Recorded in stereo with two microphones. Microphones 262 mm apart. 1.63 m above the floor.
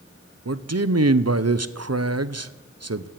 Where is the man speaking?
70° right (ahead or behind), 0.8 m.